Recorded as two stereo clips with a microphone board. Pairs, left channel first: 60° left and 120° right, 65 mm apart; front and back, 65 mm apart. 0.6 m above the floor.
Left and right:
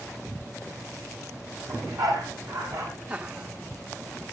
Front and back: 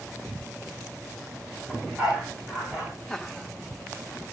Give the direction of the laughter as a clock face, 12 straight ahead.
2 o'clock.